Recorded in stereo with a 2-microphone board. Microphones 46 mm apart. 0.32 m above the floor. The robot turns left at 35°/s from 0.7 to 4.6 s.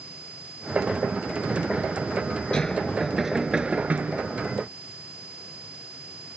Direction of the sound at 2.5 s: 20° left.